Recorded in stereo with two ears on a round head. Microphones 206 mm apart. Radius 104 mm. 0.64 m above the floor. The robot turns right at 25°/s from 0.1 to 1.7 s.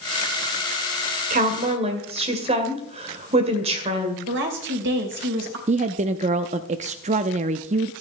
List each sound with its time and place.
1.3 s a woman speaking: 35° right (ahead or behind), 2.5 m; by 4.2 s 25° right (ahead or behind), 2.5 m
4.3 s a woman speaking: 55° right (ahead or behind), 2.5 m
5.7 s a woman speaking: 30° right (ahead or behind), 0.6 m